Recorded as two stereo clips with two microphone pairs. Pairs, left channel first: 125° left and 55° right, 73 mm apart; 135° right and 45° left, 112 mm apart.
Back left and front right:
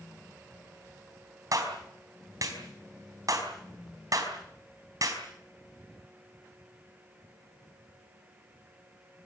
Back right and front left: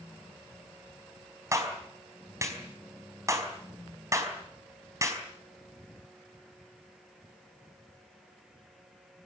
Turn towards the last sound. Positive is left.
turn(degrees=-15)